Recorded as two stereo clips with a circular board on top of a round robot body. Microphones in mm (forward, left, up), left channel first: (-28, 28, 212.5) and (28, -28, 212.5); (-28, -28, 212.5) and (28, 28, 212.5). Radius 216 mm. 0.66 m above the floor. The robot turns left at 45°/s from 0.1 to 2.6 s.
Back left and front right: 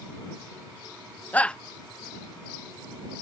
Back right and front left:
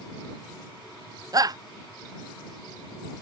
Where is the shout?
70° left; by 1.6 s 55° left.